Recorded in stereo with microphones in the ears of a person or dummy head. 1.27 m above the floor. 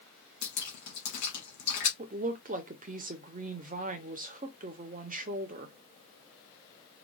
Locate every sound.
0.4 s dripping: 60° left (ahead or behind), 1.8 m
2.0 s a woman speaking: 35° right (ahead or behind), 0.7 m